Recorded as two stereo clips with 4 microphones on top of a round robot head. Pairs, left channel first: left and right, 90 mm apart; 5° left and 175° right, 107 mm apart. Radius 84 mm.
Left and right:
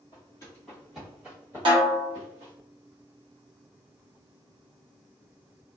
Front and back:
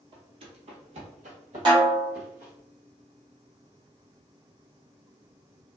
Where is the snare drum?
125° right, 0.9 m.